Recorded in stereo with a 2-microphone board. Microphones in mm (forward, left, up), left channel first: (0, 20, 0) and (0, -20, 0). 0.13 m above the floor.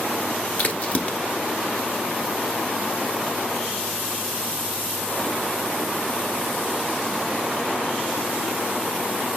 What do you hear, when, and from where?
0.6 s a crack: 35° left (ahead or behind), 1.0 m